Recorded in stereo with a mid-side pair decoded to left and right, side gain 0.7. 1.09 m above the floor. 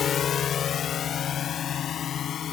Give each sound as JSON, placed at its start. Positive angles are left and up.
{"t": 0.0, "sound": "a drone", "azimuth_deg": 35}